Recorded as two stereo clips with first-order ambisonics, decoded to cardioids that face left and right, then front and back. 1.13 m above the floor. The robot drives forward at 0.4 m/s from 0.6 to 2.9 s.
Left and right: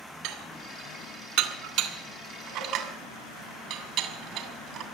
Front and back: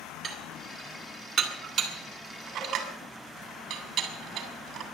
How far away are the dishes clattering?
About 2.5 m.